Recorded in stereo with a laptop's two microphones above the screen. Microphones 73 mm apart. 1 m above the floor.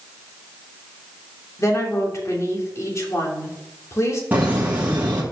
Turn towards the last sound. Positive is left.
turn(degrees=-25)  # may be behind; listen again after turning